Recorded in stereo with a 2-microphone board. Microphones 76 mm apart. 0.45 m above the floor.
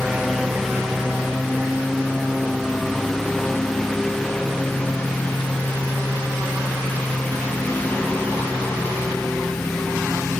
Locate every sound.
0.0 s a lawn mower: 5° right (ahead or behind); by 10.4 s 20° left (ahead or behind)